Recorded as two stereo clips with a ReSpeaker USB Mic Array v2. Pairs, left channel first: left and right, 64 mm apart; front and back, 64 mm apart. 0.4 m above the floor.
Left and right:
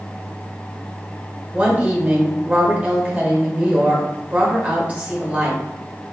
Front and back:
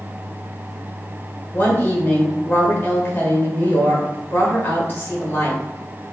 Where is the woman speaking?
30° right, 1.3 m.